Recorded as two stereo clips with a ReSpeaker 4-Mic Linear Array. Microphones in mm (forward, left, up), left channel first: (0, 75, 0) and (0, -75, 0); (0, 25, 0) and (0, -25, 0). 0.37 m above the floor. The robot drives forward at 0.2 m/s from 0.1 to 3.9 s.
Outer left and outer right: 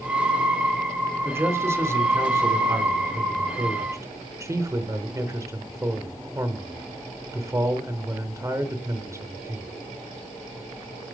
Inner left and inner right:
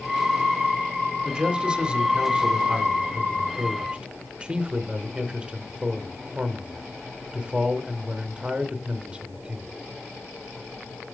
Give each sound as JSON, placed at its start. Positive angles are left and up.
{"t": 1.2, "sound": "a man speaking", "side_deg": -15, "distance_m": 1.0}